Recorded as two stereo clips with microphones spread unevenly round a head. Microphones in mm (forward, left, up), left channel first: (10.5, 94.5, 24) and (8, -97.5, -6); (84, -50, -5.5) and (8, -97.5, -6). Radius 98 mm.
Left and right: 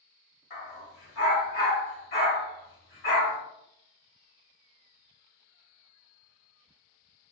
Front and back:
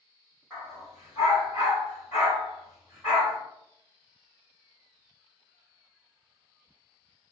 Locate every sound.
0.5 s a dog barking: 120° left, 1.6 m